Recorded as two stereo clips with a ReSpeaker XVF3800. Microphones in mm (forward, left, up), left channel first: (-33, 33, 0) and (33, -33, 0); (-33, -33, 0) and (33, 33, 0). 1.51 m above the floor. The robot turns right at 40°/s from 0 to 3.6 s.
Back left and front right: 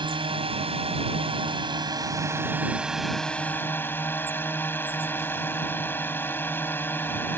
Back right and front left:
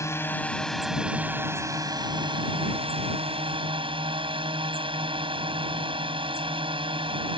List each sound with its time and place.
0.0 s a drone: 75° right; by 7.4 s 65° left